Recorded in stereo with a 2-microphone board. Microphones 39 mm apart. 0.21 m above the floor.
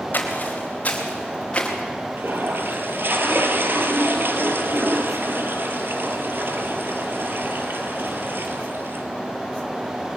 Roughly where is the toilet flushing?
Right.